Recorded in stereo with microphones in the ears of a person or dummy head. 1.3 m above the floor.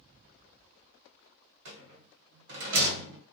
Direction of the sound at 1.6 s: 70° right (ahead or behind).